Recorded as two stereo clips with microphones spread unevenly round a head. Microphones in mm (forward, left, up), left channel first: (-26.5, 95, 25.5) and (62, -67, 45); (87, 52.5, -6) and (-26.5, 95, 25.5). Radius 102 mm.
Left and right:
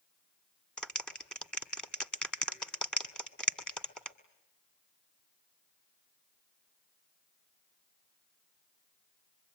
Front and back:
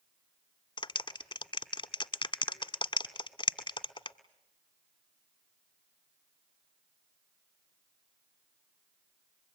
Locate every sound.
0.8 s a clap: 30° left, 1.7 m